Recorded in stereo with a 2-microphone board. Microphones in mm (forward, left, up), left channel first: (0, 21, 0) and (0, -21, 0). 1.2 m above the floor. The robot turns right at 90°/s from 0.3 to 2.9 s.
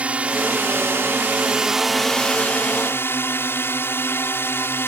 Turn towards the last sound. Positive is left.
turn(degrees=90)